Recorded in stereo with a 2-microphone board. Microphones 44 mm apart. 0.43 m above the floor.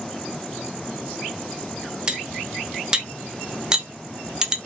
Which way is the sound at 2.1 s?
15° right (ahead or behind).